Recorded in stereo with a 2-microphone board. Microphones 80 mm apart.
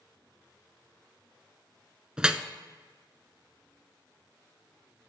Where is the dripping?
10° right (ahead or behind), 0.5 m.